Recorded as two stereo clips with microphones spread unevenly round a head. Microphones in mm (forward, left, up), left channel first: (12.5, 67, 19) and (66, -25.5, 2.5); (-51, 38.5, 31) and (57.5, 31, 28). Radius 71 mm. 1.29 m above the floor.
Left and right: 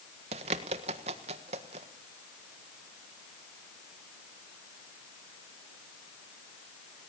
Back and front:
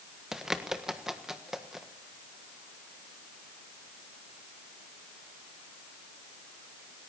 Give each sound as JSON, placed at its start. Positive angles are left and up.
{"t": 0.3, "sound": "a bird", "azimuth_deg": -90, "distance_m": 1.4}